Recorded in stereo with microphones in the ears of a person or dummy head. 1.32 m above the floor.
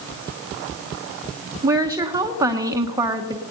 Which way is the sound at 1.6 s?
15° right (ahead or behind).